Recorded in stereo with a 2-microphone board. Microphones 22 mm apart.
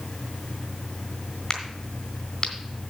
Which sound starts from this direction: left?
A crack, at 1.5 s.